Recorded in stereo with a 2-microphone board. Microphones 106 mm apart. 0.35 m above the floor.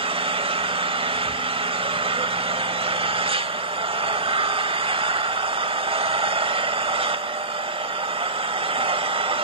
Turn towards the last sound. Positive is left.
turn(degrees=-55)  # may be behind; listen again after turning